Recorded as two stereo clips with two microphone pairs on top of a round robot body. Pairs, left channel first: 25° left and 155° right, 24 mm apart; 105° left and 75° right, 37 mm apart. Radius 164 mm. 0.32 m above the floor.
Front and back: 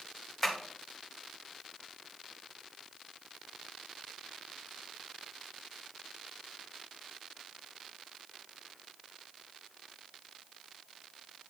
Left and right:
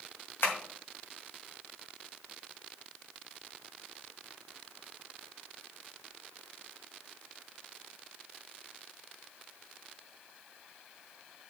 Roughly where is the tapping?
Left.